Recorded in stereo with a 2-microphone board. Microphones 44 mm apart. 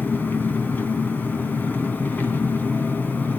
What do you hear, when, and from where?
0.0 s an engine running: 40° left (ahead or behind), 3 m